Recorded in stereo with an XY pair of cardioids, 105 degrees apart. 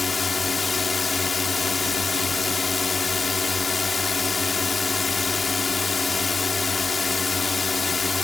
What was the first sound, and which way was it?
A drone, 30° left.